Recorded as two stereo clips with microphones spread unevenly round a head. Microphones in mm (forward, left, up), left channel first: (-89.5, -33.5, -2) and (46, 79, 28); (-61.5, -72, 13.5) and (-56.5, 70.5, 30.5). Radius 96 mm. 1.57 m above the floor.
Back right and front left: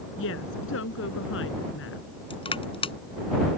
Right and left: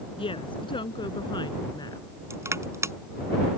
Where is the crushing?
160° left.